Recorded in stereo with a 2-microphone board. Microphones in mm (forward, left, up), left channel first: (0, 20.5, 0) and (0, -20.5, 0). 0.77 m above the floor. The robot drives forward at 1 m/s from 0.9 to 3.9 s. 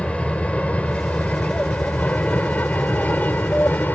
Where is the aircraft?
30° left (ahead or behind); by 4.0 s 50° left (ahead or behind).